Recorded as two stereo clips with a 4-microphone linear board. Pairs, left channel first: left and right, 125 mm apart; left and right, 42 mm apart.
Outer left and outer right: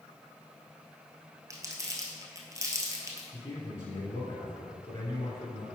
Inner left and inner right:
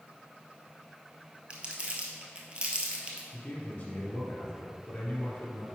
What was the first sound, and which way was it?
Crumpling, 25° right (ahead or behind).